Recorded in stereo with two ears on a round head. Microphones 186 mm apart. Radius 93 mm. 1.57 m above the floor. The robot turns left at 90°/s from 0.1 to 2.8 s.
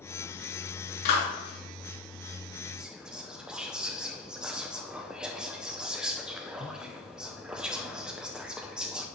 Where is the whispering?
5° right (ahead or behind), 0.6 m.